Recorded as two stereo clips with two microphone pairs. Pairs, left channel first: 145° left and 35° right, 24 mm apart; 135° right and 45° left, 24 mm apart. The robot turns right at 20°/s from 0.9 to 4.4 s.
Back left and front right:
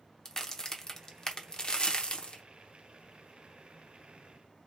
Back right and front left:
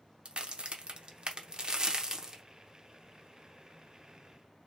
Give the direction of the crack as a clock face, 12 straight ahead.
9 o'clock.